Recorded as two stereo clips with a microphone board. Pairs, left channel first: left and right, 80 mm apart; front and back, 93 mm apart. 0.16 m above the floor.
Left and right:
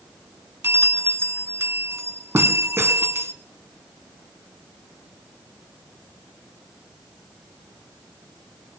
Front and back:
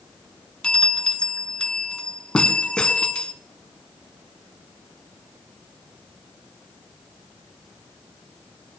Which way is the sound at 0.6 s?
70° right.